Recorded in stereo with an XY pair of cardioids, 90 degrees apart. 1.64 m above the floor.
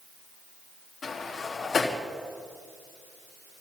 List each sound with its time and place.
1.0 s a sliding door: 40° left, 3 m